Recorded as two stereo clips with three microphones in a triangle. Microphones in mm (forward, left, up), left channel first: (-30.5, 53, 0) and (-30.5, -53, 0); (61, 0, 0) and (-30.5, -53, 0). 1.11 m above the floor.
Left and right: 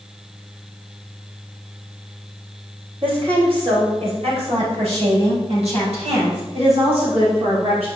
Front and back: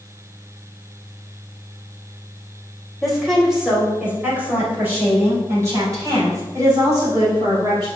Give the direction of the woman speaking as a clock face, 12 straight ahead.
2 o'clock.